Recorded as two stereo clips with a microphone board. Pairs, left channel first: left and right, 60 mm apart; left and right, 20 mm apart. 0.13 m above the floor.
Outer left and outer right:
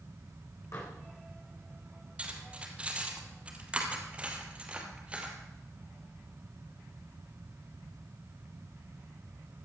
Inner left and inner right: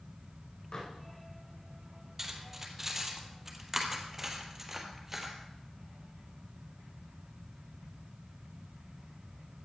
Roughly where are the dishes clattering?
Left.